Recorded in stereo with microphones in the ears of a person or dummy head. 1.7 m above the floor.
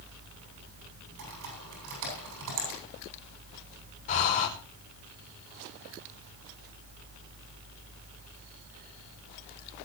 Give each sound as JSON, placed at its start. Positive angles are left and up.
{"t": 1.2, "sound": "typing on a keyboard", "side_deg": -80, "distance_m": 8.5}
{"t": 4.1, "sound": "breathing", "side_deg": 40, "distance_m": 5.0}